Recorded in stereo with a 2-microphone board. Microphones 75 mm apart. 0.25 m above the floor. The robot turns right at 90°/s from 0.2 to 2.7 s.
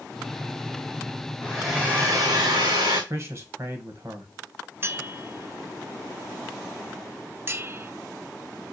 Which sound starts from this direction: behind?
A hair dryer, at 1.4 s.